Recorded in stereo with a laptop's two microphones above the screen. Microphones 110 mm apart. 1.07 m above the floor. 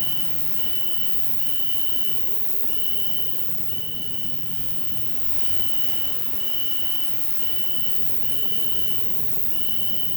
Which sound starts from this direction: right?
An insect, at 0.0 s.